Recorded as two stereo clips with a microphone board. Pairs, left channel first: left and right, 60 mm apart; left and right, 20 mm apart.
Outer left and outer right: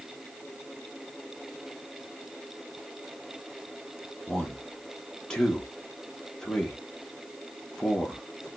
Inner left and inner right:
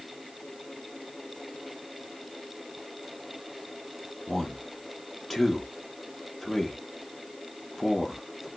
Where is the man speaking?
10° left (ahead or behind), 1.3 m.